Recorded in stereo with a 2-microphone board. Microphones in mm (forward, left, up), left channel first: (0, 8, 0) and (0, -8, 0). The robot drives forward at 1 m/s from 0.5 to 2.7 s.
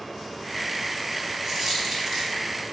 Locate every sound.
1.4 s a dropped coin: 30° right (ahead or behind), 4 m; by 2.4 s 40° right (ahead or behind), 3.5 m